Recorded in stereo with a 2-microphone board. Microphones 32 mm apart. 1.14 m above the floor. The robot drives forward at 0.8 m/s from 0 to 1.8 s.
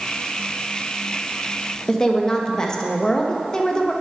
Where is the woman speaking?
20° left (ahead or behind), 0.9 m.